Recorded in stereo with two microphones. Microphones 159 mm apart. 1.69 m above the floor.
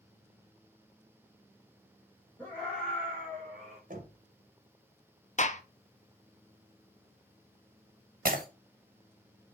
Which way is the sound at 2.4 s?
10° left (ahead or behind).